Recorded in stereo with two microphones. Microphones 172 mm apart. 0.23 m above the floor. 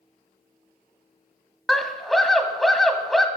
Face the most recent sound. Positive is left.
turn(degrees=0)  # may be behind; listen again after turning